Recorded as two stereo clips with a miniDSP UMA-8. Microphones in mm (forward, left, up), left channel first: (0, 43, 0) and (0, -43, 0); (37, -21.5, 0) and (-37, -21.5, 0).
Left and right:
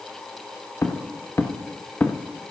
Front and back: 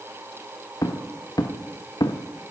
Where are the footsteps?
35° left, 1.8 m; by 2.5 s 15° left, 1.0 m.